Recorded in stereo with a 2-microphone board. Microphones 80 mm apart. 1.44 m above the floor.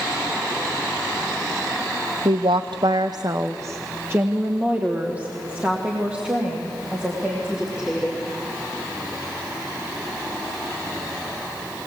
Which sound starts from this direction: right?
A woman speaking, at 2.2 s.